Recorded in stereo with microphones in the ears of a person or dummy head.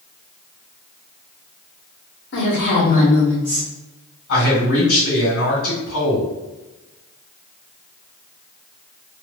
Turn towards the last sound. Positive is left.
turn(degrees=60)  # may be behind; listen again after turning